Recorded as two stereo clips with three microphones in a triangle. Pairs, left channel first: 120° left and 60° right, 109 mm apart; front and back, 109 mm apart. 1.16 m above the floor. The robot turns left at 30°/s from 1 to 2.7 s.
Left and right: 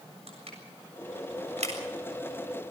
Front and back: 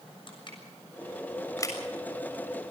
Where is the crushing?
40° right, 7 m; by 1.8 s 60° right, 7 m.